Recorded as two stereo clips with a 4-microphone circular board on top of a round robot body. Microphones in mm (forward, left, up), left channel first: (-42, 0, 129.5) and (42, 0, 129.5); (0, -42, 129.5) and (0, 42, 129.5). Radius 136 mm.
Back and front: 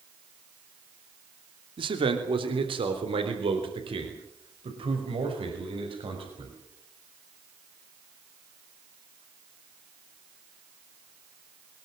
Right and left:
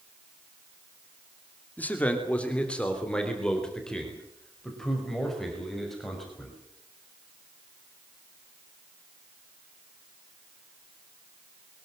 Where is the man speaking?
20° right, 2.5 m; by 6.5 s straight ahead, 7 m.